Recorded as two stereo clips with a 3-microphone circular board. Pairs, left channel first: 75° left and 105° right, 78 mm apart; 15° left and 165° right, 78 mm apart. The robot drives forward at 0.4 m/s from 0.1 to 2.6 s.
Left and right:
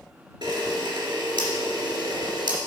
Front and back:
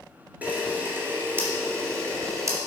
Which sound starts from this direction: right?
A camera shutter, at 0.4 s.